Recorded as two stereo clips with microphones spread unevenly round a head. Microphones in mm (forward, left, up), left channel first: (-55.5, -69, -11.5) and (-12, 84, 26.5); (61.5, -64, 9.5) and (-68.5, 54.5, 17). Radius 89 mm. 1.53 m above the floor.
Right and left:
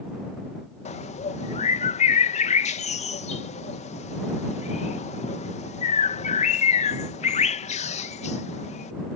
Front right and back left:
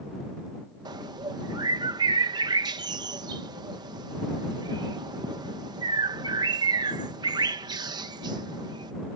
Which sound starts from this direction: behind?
A bird, at 0.8 s.